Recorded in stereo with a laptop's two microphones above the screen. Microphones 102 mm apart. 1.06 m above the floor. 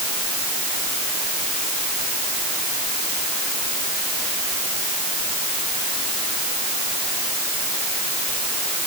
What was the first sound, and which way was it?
Only background noise.